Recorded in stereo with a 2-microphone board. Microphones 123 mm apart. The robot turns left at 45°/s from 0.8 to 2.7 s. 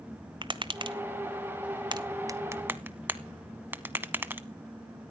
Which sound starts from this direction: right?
Tapping, at 0.4 s.